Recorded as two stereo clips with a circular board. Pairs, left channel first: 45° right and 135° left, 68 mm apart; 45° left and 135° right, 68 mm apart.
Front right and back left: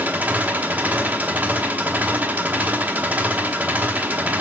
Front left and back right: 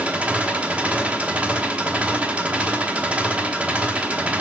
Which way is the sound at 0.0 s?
170° left.